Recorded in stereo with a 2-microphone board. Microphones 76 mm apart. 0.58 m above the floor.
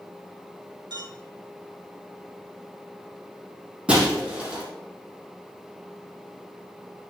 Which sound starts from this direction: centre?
Breaking glass, at 3.9 s.